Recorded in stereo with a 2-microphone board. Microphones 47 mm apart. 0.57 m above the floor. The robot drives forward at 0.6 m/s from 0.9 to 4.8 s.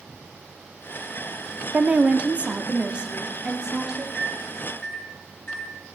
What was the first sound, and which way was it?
A woman speaking, 25° right (ahead or behind).